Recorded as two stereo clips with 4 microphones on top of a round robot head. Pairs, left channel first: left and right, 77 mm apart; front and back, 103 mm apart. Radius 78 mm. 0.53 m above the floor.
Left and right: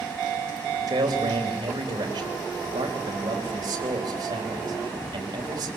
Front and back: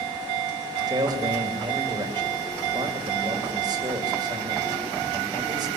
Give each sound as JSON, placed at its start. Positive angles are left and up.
{"t": 0.9, "sound": "a man speaking", "azimuth_deg": -130, "distance_m": 3.5}